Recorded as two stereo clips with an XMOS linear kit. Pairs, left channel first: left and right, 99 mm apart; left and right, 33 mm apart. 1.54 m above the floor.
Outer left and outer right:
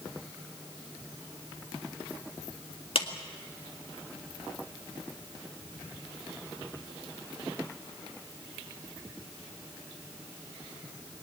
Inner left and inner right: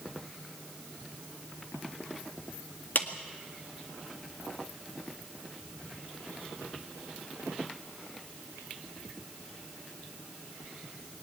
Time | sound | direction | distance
3.0 | a clap | 65° left (ahead or behind) | 1.9 m